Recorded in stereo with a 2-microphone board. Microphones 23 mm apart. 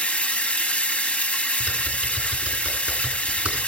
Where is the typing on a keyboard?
55° right (ahead or behind), 3 m.